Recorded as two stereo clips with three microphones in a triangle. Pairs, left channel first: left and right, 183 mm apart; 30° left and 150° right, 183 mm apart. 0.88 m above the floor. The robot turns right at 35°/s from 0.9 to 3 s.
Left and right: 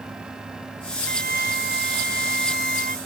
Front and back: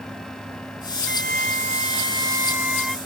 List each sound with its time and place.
1.1 s a flute: 125° right; by 3.0 s 55° right